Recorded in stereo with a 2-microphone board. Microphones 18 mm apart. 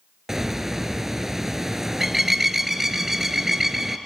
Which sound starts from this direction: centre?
A bird, at 0.3 s.